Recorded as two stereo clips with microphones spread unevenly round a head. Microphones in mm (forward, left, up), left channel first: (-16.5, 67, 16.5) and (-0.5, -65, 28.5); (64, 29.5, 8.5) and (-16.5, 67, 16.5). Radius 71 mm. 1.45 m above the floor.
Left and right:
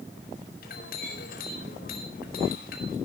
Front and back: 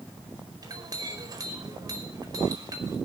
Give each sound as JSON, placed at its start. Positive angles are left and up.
{"t": 0.6, "sound": "a clink", "azimuth_deg": 110, "distance_m": 4.5}